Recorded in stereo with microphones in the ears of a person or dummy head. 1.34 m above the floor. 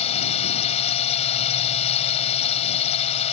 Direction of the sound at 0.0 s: 35° left (ahead or behind).